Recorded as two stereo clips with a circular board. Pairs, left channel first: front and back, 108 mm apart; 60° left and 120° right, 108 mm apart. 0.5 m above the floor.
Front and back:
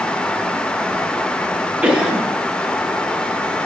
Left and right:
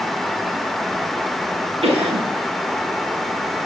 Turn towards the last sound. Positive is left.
turn(degrees=-100)